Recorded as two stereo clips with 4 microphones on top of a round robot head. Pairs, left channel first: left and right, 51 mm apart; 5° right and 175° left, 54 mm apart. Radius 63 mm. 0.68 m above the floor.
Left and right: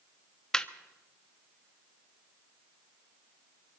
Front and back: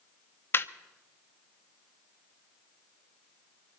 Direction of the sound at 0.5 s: 15° left.